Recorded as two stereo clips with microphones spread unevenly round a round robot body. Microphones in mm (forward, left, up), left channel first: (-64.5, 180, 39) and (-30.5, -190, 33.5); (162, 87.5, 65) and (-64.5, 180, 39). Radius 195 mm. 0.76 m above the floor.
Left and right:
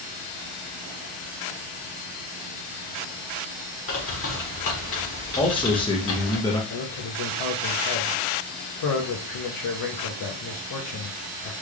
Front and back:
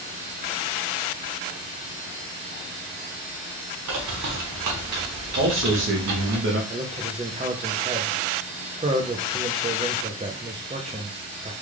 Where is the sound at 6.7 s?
105° left, 0.8 m.